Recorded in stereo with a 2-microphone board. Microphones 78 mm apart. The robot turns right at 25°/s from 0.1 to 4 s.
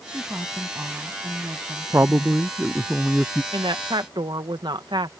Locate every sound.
0.1 s a woman speaking: 160° right; by 2.4 s 105° right
1.9 s a man speaking: 35° right; by 3.4 s 5° left
3.5 s a woman speaking: 85° right; by 5.1 s 75° right (ahead or behind)